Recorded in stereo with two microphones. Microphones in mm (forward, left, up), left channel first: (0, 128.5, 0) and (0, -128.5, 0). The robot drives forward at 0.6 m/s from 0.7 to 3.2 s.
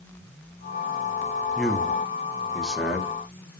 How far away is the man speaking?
About 1.0 m.